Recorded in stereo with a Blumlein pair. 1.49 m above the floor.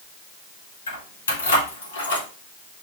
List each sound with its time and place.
0.9 s keys jangling: 65° left, 1.9 m; by 2.3 s 55° left, 1.2 m